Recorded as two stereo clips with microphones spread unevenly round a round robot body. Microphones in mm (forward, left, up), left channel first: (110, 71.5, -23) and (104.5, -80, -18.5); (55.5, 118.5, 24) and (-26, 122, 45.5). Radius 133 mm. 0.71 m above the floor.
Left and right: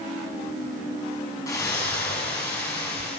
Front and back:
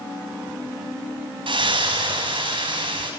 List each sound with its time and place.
1.5 s a splash: 165° left, 6.5 m